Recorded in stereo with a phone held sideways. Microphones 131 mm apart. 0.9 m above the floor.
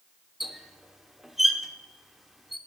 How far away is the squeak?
About 0.8 m.